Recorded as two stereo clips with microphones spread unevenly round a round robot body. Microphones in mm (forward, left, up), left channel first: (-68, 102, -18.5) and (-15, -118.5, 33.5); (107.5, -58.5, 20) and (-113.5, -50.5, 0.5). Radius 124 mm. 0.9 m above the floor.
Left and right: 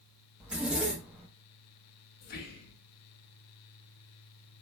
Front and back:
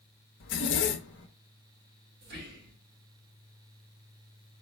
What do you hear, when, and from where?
0.4 s a zipper: 20° left, 0.7 m
2.2 s whispering: 135° left, 1.5 m